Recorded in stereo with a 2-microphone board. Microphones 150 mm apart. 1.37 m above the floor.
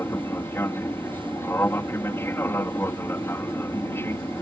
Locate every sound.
0.0 s an aircraft: 15° left (ahead or behind)